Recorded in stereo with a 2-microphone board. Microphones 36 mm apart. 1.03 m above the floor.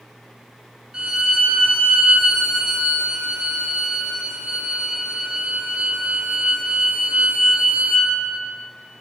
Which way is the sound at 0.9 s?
30° right (ahead or behind).